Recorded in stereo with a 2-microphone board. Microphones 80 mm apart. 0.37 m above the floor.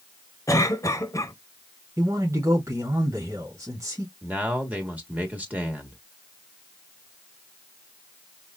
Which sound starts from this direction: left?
A cough, at 0.5 s.